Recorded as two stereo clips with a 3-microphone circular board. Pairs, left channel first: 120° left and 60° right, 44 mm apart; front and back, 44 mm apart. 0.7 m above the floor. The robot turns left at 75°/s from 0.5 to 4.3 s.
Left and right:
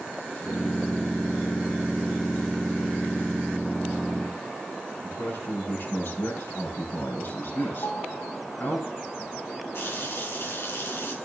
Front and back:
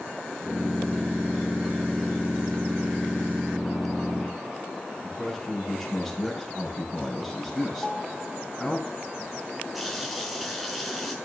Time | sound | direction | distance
5.0 | a man speaking | 90° left | 7.5 m
7.8 | a piano | 105° left | 1.8 m
9.7 | a running tap | 90° left | 5 m